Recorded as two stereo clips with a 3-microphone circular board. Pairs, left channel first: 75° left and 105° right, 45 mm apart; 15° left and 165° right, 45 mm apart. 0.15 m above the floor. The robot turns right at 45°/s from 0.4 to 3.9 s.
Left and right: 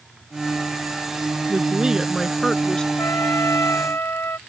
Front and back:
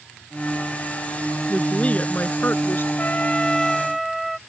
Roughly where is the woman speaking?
Ahead right.